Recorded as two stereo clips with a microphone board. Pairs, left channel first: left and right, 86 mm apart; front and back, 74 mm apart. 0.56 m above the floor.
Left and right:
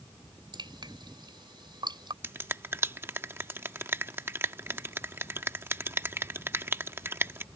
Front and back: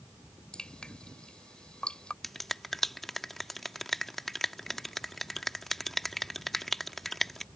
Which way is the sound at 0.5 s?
80° right.